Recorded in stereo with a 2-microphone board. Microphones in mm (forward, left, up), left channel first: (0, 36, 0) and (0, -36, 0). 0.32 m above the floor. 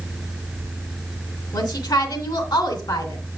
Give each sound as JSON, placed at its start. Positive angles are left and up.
{"t": 1.5, "sound": "a woman speaking", "side_deg": 70, "distance_m": 3.0}